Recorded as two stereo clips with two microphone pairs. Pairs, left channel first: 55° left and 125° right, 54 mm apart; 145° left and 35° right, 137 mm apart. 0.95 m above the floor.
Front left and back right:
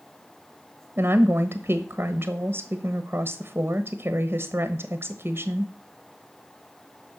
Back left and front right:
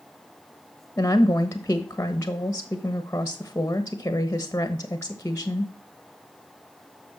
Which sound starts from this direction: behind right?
A woman speaking, at 1.0 s.